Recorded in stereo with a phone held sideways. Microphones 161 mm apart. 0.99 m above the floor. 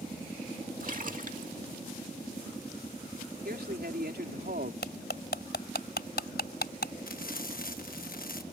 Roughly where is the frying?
Left.